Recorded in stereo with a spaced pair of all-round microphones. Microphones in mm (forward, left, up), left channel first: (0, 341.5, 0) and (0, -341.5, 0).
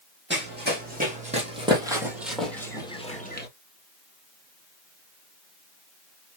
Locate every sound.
0.3 s running footsteps: 15° right (ahead or behind), 3.5 m; by 3.5 s 15° left (ahead or behind), 1.9 m